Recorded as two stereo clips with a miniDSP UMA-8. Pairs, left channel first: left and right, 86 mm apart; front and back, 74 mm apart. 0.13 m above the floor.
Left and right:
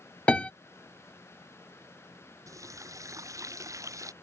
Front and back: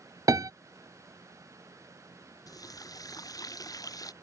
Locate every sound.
0.3 s a piano: 165° left
2.5 s a running tap: 35° right